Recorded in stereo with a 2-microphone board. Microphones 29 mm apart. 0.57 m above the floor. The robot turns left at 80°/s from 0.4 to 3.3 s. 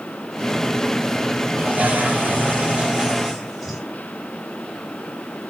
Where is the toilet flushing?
45° right, 5 m; by 3.8 s 175° left, 5 m.